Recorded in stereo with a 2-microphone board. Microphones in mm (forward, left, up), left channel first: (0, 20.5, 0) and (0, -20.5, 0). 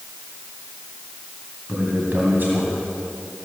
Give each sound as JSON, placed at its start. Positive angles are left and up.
{"t": 1.7, "sound": "a man speaking", "side_deg": -50, "distance_m": 1.9}